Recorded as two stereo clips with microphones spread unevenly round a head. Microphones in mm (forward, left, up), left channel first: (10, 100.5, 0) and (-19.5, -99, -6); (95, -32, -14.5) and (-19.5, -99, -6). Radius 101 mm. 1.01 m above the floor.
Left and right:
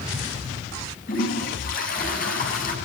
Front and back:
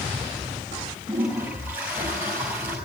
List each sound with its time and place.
1.1 s a toilet flushing: 130° left, 7.5 m